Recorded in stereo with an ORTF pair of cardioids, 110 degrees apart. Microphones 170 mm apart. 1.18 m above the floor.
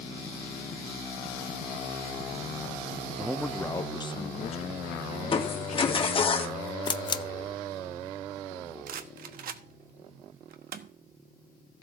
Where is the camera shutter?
30° left, 0.7 m.